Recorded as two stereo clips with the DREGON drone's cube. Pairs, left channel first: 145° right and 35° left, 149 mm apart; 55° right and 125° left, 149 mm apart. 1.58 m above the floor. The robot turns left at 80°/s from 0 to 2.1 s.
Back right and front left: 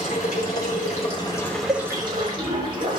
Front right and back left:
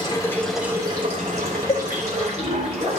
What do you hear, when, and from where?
0.0 s running water: 105° right, 3.5 m; by 3.0 s 90° left, 3.5 m
1.7 s a cowbell: 20° right, 1.8 m; by 1.9 s 35° right, 1.8 m